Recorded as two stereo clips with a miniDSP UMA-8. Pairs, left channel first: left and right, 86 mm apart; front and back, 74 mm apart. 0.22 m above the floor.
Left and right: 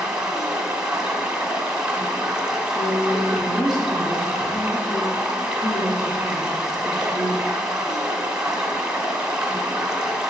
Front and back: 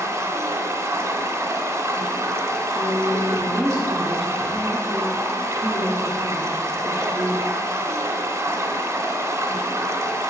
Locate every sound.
0.0 s running water: 170° right, 1.0 m
2.8 s a woman speaking: 95° left, 3.5 m